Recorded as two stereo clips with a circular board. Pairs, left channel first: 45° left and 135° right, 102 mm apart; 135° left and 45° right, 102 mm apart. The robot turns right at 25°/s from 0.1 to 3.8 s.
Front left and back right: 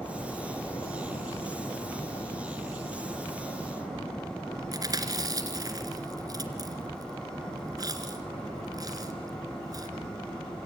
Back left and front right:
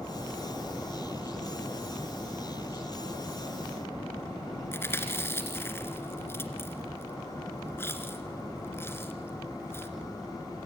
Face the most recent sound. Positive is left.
turn(degrees=-170)